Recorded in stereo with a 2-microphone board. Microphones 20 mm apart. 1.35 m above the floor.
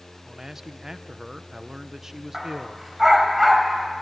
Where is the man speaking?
25° right (ahead or behind), 1.0 m.